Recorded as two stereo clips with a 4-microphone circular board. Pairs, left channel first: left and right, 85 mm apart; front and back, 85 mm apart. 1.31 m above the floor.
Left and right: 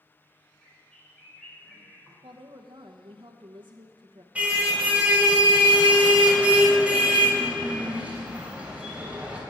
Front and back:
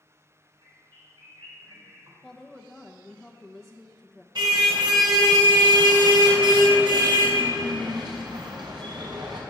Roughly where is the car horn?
Behind.